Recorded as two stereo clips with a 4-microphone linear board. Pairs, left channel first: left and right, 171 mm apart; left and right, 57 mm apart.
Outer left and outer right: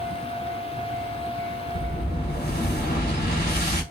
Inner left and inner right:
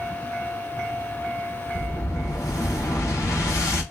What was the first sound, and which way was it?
An explosion, 65° left (ahead or behind).